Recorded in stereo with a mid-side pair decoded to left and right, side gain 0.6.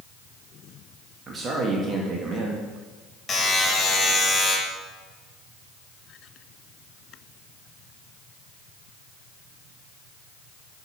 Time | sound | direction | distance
1.3 | a man speaking | 35° right | 1.4 m
3.3 | a buzzer | 25° left | 2.5 m